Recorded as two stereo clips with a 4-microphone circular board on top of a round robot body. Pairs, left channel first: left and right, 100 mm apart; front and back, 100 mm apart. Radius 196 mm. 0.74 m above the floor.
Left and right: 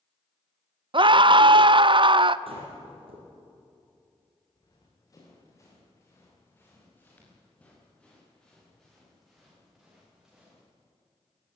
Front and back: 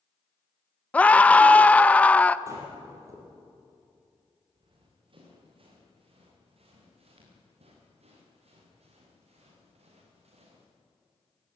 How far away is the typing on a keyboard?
I don't hear typing on a keyboard.